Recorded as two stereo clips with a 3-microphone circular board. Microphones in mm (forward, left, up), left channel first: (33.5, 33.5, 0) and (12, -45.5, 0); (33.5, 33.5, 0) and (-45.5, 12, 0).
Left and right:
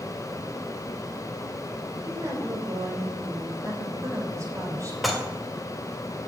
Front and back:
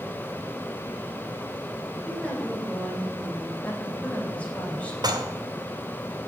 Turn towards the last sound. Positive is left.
turn(degrees=165)